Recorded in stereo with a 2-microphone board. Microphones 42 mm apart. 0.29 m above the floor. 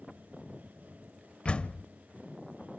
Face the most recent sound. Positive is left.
turn(degrees=25)  # may be behind; listen again after turning